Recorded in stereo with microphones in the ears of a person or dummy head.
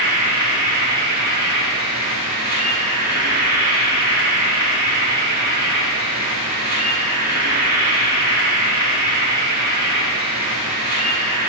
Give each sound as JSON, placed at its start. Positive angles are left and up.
{"t": 0.0, "sound": "an insect", "side_deg": -50, "distance_m": 3.5}